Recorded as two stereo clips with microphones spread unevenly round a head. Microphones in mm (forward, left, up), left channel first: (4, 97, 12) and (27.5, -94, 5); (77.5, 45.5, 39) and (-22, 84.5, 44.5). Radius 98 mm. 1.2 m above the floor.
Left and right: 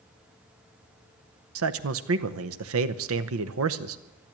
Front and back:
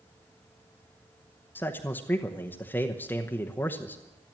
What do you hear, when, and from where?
1.6 s a man speaking: 100° right, 0.8 m